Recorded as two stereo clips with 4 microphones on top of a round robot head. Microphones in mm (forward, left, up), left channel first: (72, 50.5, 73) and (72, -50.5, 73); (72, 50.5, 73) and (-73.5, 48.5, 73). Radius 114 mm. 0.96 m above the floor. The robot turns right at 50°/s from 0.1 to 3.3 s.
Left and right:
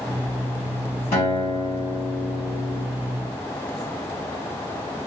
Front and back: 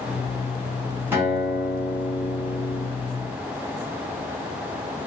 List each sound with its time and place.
1.1 s a guitar: 105° left, 2.0 m; by 2.8 s 170° right, 2.0 m